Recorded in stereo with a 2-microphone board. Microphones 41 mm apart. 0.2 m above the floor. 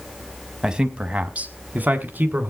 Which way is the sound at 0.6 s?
20° right (ahead or behind).